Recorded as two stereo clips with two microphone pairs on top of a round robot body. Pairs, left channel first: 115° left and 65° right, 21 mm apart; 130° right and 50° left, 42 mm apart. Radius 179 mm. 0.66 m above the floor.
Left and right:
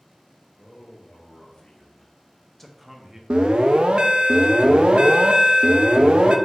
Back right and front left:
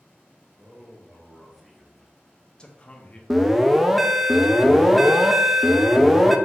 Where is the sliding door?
No sliding door in this recording.